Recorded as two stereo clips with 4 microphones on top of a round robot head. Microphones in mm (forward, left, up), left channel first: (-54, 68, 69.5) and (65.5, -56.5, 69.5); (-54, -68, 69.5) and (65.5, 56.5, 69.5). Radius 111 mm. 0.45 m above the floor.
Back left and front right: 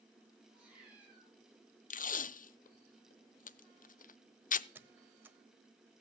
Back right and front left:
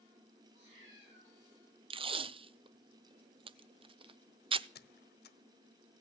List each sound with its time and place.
0.5 s a cat meowing: 35° left, 8.5 m
1.9 s tape being pulled: 100° left, 0.6 m
4.8 s a squeak: 125° right, 1.1 m